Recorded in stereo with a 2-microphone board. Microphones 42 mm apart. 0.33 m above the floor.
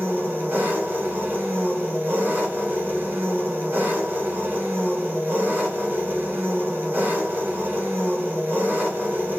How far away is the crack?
I don't hear a crack.